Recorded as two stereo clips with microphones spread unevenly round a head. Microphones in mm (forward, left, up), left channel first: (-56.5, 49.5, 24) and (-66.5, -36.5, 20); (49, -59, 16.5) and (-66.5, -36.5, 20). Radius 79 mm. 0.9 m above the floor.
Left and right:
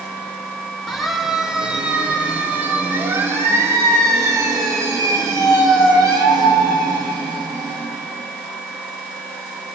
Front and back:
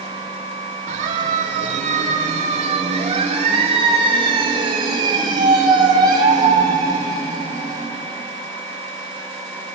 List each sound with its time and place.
0.9 s a siren: 170° left, 2.5 m; by 7.9 s 130° right, 5.5 m